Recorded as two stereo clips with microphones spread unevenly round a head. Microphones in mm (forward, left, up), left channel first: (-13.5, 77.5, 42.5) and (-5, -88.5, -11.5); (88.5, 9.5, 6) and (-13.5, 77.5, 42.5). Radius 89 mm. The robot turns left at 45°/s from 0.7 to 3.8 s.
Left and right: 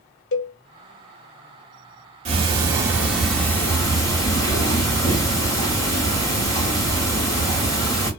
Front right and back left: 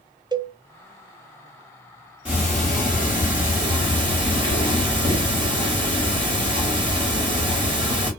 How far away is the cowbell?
About 0.6 m.